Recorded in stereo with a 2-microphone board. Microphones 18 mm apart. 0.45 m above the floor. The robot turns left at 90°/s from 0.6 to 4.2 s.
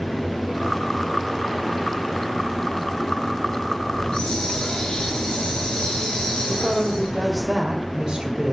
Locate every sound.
3.9 s a hiss: 75° left (ahead or behind), 4.5 m
6.5 s a woman speaking: 50° right (ahead or behind), 1.8 m